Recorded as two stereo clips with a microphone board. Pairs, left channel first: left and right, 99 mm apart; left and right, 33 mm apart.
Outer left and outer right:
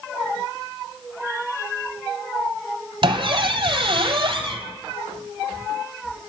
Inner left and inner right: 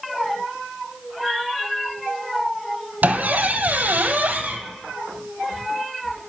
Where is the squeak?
65° right (ahead or behind), 0.6 m.